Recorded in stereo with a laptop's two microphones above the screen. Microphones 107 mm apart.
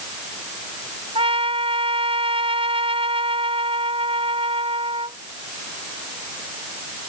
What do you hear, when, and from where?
1.1 s a trumpet: 60° right (ahead or behind)